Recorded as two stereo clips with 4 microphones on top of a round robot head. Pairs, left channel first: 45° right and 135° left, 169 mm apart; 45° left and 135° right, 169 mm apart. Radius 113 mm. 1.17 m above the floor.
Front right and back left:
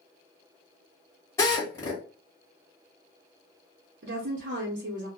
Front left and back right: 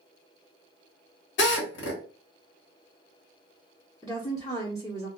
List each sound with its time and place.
1.4 s a drill: 30° left, 1.1 m
4.0 s a woman speaking: 120° left, 0.8 m